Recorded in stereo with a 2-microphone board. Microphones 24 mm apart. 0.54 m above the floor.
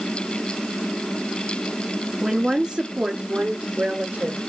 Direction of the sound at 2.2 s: 5° right (ahead or behind).